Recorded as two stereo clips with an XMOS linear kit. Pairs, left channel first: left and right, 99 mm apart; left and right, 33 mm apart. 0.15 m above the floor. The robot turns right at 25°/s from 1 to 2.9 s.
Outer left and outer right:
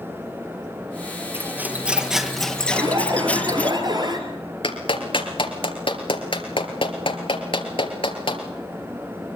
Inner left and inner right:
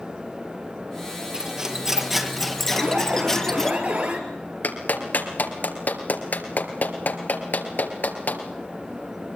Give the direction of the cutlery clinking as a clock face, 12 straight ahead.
1 o'clock.